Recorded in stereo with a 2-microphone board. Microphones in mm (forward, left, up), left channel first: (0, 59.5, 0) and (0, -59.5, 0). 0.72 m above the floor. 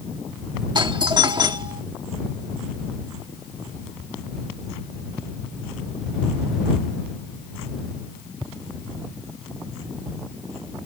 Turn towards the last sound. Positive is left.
turn(degrees=-40)  # may be behind; listen again after turning